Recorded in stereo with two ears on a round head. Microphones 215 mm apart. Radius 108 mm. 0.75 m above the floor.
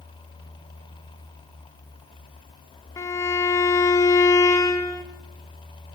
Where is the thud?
I don't hear a thud.